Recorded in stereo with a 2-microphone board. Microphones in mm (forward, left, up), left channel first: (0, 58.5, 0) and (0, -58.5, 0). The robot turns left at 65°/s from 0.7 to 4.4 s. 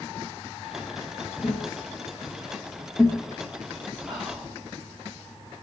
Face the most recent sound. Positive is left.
turn(degrees=-25)  # may be behind; listen again after turning